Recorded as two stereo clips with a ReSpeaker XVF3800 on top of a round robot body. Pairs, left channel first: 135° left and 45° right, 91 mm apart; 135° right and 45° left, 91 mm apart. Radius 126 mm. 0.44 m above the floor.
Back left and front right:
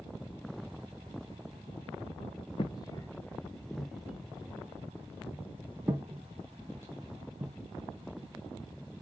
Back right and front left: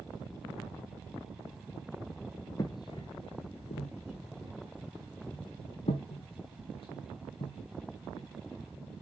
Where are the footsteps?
170° left, 0.6 m; by 8.3 s 105° right, 3 m.